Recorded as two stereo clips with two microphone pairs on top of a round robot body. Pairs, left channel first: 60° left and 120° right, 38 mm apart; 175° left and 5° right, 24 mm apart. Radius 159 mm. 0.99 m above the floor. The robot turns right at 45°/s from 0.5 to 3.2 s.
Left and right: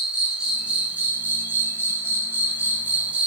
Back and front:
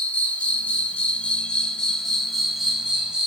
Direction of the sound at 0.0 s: 175° left.